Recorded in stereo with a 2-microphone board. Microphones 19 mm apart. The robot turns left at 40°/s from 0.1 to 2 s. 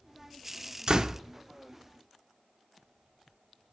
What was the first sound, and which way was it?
A door slam, 45° right (ahead or behind).